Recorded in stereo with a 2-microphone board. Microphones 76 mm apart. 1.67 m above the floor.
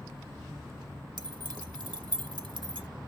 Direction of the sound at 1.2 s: 65° right (ahead or behind).